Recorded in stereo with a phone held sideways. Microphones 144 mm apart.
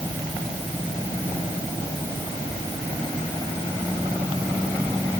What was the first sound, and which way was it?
Only background noise.